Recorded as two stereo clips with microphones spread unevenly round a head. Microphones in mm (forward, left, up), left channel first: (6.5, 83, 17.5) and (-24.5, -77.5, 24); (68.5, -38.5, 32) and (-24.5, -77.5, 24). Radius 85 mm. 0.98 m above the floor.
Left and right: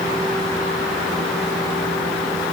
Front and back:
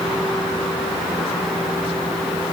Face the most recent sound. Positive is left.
No sound to turn to.